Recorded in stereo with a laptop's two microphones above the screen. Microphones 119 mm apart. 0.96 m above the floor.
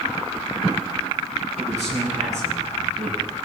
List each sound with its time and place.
1.6 s a man speaking: 80° right, 8 m